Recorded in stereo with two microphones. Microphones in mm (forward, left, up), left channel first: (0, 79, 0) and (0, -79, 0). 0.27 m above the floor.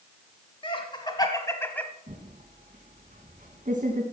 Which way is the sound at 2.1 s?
55° right (ahead or behind).